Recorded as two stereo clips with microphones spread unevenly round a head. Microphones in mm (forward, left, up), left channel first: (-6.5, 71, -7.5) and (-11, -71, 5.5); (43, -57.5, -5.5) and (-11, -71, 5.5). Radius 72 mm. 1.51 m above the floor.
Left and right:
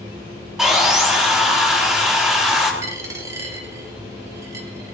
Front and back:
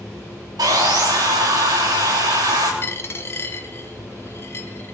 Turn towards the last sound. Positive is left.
turn(degrees=-30)